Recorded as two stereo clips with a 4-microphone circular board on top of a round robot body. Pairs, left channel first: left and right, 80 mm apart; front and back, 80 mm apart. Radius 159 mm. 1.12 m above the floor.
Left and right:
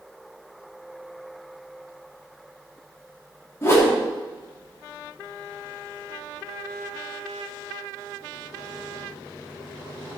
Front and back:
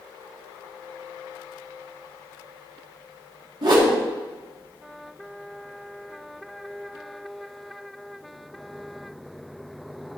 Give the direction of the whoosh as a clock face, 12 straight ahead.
7 o'clock.